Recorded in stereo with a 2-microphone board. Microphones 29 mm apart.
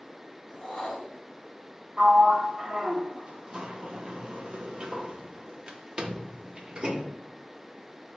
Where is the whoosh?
15° left (ahead or behind), 1.7 m.